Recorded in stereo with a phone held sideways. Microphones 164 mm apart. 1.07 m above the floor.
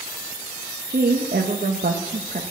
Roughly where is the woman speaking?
Right.